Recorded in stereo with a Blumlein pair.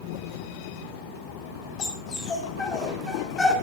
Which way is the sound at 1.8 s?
25° left.